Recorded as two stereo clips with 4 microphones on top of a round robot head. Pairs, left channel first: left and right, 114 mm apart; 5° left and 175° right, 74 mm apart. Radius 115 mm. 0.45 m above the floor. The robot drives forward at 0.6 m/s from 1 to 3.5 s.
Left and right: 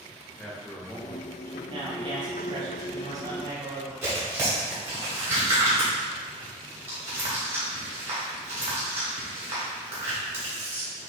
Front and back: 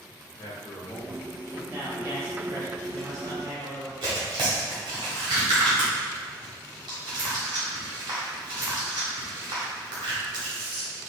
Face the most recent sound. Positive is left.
turn(degrees=-160)